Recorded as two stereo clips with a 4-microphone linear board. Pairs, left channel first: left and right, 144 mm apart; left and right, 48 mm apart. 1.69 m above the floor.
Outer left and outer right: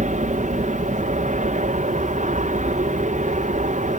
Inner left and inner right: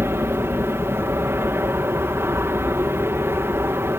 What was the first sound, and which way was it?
An aircraft, 60° right (ahead or behind).